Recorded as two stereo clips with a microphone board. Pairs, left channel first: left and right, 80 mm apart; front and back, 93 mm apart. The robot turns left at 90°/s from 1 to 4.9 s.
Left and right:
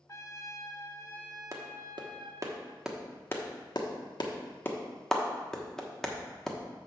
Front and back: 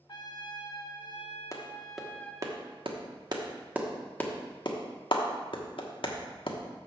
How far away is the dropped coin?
I don't hear a dropped coin.